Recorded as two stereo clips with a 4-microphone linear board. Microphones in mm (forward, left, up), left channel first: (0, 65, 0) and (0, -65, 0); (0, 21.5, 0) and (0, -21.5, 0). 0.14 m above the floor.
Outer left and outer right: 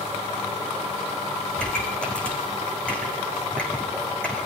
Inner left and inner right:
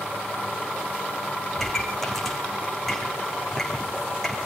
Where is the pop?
10° left (ahead or behind), 5 m.